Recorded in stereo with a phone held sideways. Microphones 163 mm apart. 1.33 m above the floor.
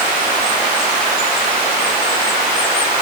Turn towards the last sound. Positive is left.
No sound to turn to.